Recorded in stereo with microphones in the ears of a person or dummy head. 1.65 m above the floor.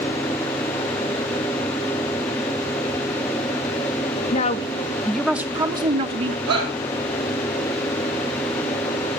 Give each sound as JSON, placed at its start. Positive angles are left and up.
{"t": 4.3, "sound": "a woman speaking", "side_deg": 40, "distance_m": 0.7}
{"t": 6.5, "sound": "a shout", "side_deg": -75, "distance_m": 4.5}